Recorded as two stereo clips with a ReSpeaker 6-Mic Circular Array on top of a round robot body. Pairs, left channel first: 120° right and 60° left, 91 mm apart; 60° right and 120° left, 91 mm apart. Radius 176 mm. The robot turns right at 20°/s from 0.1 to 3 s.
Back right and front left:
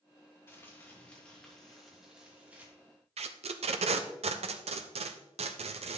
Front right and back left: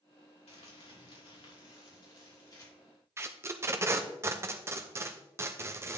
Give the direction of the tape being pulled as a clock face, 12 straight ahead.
10 o'clock.